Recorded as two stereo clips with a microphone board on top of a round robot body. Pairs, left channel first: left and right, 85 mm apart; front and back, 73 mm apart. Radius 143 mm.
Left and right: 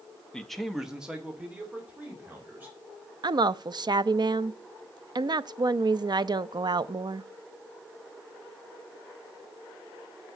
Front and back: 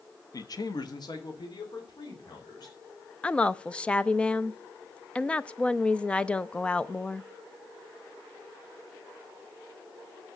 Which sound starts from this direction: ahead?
A man speaking, at 0.3 s.